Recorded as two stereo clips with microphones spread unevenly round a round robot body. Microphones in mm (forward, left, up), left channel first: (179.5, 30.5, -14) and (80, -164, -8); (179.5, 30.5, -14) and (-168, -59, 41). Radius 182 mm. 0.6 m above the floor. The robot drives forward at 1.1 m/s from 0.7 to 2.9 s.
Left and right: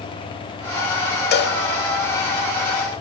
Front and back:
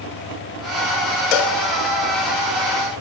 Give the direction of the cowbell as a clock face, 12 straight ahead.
11 o'clock.